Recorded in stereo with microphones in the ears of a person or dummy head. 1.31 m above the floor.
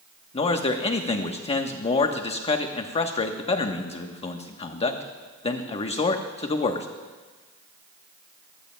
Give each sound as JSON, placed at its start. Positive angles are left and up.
{"t": 0.3, "sound": "a man speaking", "side_deg": 35, "distance_m": 1.0}